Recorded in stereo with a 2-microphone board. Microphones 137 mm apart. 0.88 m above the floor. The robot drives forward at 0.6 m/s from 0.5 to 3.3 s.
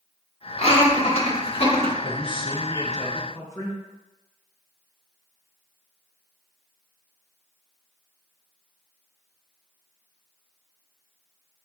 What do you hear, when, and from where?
0.6 s laughter: 40° left (ahead or behind), 1.1 m
2.0 s a man speaking: 40° left (ahead or behind), 0.5 m; by 3.8 s 20° left (ahead or behind), 0.9 m